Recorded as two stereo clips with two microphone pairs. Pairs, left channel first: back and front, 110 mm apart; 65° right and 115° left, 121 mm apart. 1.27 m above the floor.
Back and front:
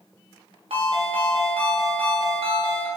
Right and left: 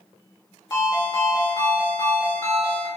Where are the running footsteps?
I don't hear running footsteps.